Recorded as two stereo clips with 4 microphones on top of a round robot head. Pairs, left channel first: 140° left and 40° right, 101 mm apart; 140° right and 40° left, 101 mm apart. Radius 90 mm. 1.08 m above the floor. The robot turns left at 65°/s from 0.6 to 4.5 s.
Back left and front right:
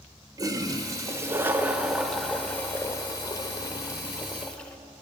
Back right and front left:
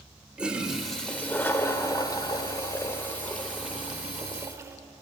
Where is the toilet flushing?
35° right, 0.7 m; by 4.8 s 70° left, 0.7 m.